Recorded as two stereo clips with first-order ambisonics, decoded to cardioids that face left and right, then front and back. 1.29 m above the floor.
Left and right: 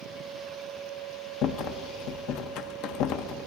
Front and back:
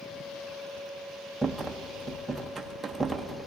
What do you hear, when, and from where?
1.4 s a rattle: 95° left, 0.6 m